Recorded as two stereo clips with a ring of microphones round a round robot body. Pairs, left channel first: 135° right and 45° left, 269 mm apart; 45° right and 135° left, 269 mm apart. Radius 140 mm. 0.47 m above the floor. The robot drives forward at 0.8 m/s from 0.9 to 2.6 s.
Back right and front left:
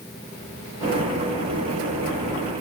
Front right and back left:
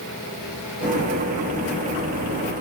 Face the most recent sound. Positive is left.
No sound to turn to.